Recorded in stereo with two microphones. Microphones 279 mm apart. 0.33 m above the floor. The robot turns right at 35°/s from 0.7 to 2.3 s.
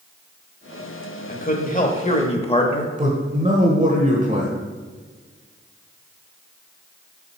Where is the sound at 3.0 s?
30° right (ahead or behind), 1.1 m.